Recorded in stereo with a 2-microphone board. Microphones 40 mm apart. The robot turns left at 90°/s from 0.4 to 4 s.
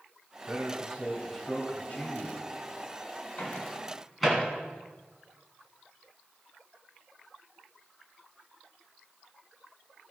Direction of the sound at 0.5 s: 95° right.